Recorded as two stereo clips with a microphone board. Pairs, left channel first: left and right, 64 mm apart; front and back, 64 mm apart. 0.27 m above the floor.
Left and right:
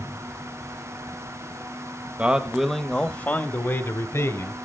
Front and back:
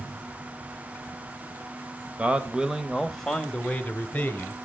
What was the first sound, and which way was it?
A man speaking, 135° right.